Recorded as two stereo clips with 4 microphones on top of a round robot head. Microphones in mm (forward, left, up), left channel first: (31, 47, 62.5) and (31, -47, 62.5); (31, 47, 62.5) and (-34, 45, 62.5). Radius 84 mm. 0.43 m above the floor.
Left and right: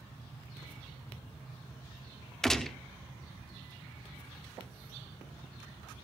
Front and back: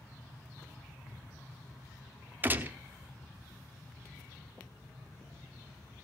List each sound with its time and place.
2.4 s a gunshot: 170° left, 1.2 m